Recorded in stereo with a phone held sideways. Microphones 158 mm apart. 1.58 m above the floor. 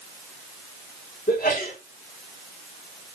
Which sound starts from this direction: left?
A sneeze, at 1.3 s.